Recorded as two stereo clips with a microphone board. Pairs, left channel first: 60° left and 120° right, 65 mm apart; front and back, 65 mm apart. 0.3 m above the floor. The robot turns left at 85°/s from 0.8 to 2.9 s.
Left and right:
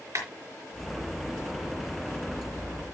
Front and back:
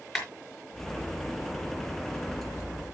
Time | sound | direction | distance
0.1 | a clap | 85° right | 5 m